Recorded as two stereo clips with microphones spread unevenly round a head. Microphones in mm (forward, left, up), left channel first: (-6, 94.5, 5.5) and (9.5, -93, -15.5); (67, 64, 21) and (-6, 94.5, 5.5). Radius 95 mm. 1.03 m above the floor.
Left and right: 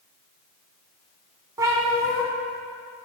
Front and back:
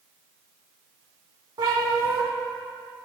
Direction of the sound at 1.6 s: 160° right.